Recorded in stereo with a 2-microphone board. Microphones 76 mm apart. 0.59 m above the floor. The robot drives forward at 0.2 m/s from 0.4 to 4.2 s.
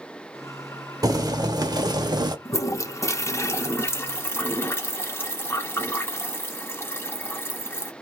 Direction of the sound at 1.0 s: 55° right (ahead or behind).